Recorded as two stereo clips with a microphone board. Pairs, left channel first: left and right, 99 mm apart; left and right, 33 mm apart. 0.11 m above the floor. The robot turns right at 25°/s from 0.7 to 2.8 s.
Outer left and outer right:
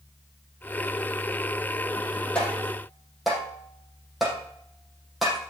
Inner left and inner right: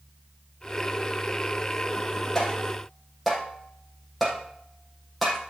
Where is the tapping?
10° left (ahead or behind), 4.5 m; by 5.4 s centre (ahead or behind), 4.5 m.